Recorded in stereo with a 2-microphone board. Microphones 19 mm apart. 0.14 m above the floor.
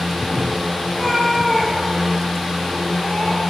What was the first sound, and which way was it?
A cat meowing, 15° left (ahead or behind).